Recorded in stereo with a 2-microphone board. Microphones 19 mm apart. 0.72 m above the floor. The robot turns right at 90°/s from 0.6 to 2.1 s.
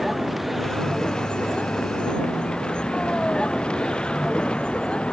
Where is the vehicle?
Centre (ahead or behind); by 5.1 s 55° left (ahead or behind).